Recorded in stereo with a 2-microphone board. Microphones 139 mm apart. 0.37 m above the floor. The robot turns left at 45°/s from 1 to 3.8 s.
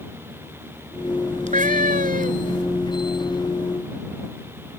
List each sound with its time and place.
1.5 s a cat meowing: 65° right; by 2.6 s 120° right